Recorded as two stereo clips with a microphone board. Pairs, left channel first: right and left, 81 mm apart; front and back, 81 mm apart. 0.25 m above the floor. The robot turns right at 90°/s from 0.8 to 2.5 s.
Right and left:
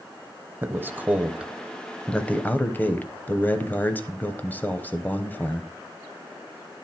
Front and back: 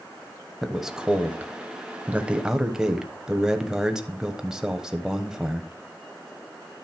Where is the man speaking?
100° left, 0.9 m; by 5.7 s 110° right, 0.9 m.